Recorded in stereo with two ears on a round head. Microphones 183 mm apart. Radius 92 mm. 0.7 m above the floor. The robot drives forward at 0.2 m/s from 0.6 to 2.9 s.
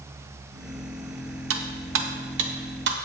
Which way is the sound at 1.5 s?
75° right (ahead or behind).